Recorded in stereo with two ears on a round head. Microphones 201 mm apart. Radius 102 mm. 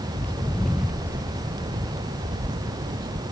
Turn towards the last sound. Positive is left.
turn(degrees=-45)  # may be behind; listen again after turning